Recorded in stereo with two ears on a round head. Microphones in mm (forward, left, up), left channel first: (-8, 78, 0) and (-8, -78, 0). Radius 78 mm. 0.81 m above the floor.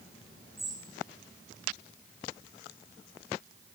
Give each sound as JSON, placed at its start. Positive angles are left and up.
{"t": 0.6, "sound": "a bird", "side_deg": 0, "distance_m": 7.5}